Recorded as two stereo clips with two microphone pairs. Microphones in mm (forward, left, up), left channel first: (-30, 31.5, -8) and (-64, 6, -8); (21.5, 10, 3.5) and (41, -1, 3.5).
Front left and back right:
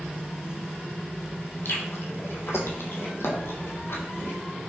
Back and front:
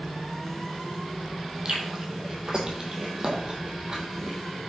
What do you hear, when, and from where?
1.6 s chewing: 30° left, 1.2 m